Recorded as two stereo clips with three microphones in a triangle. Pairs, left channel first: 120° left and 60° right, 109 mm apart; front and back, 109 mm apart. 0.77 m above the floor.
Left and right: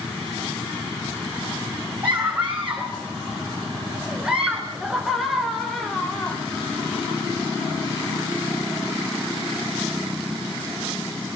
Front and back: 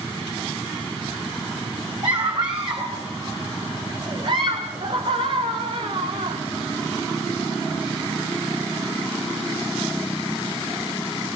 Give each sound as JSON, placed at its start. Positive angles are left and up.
{"t": 2.0, "sound": "a scream", "azimuth_deg": -130, "distance_m": 4.0}